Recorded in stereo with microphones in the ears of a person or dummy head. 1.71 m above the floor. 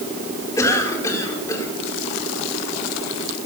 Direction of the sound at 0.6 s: 15° left (ahead or behind).